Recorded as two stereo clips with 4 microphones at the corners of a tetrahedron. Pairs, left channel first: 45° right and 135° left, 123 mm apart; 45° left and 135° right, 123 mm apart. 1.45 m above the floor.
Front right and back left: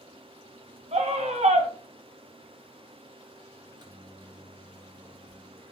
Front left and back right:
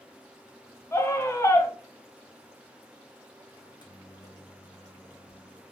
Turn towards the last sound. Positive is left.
turn(degrees=90)